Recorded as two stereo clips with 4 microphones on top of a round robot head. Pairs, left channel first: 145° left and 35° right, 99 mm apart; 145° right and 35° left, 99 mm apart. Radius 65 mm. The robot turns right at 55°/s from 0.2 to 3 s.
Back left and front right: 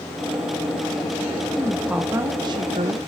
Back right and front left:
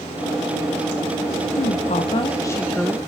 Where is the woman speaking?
135° right, 0.7 m; by 3.0 s 55° right, 0.7 m.